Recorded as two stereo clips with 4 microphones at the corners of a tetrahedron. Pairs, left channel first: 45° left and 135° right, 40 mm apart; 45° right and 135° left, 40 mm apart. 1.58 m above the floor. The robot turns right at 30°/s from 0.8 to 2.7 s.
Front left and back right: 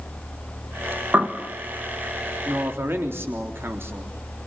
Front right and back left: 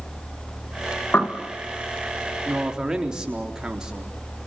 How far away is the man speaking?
About 3.5 m.